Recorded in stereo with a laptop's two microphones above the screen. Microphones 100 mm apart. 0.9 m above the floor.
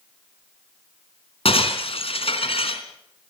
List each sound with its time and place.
1.4 s breaking glass: 75° left (ahead or behind), 3.5 m